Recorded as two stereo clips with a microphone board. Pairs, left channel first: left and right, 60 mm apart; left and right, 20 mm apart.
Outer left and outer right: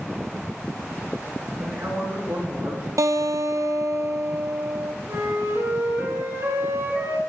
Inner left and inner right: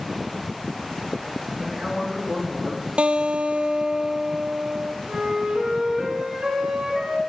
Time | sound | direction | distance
1.6 | a man speaking | 55° right (ahead or behind) | 4 m
3.0 | a guitar | 65° right (ahead or behind) | 0.6 m
5.1 | a flute | 50° right (ahead or behind) | 4.5 m